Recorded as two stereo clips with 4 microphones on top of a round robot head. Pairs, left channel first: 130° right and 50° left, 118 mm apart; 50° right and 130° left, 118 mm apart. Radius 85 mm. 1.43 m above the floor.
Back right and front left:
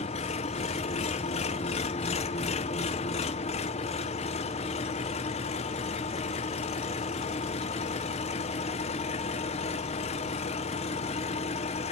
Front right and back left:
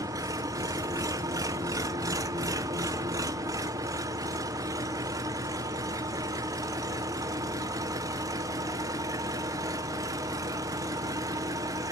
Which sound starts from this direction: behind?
An engine running, at 0.0 s.